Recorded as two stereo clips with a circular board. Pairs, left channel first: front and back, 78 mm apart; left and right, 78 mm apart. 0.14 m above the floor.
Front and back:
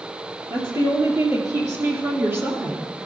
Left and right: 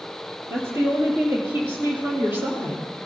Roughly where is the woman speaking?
Behind right.